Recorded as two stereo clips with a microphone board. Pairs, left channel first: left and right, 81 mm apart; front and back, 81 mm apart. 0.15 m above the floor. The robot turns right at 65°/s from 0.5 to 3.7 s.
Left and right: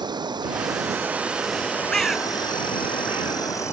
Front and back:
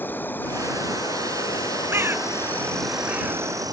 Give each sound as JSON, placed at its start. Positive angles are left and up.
{"t": 0.0, "sound": "an insect", "azimuth_deg": -65}
{"t": 1.9, "sound": "a bird", "azimuth_deg": 165}